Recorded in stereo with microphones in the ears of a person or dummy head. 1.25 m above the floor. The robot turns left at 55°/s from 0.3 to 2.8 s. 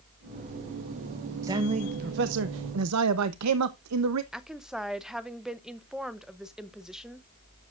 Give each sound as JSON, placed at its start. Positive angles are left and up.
{"t": 1.4, "sound": "a man speaking", "azimuth_deg": -15, "distance_m": 0.8}
{"t": 4.3, "sound": "a woman speaking", "side_deg": 0, "distance_m": 0.8}